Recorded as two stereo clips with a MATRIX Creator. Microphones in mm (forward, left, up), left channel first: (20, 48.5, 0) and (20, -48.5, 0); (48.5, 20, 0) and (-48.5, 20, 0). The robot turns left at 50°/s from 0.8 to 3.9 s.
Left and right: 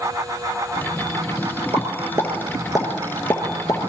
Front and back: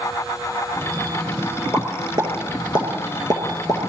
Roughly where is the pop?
Behind right.